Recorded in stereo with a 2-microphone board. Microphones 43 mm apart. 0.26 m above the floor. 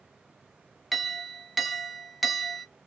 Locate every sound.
0.9 s a clink: centre (ahead or behind), 0.6 m